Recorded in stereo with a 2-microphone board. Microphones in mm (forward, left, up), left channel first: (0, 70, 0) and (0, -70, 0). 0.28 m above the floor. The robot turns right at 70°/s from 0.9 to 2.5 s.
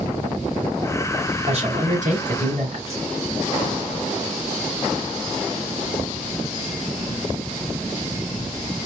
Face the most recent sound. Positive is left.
turn(degrees=-55)